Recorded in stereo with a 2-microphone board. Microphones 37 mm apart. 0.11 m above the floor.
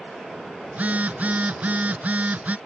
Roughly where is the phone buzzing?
Right.